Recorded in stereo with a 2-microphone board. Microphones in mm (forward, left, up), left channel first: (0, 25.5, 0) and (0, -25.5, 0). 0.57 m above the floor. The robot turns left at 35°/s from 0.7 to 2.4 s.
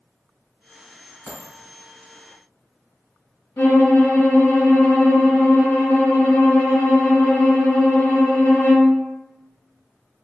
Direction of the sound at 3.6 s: 70° left (ahead or behind).